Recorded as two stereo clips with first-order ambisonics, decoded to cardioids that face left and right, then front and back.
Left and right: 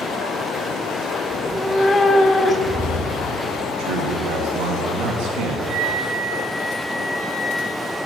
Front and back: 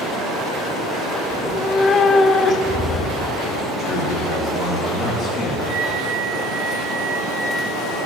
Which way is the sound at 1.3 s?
20° left.